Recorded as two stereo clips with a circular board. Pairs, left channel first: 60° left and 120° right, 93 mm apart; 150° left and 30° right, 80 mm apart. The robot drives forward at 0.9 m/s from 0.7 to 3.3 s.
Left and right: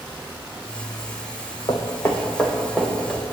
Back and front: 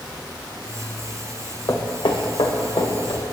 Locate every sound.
1.7 s footsteps: 105° left, 1.9 m; by 3.3 s 160° left, 4 m